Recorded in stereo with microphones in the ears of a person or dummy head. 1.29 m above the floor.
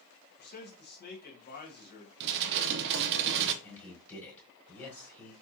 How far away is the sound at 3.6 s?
About 3 m.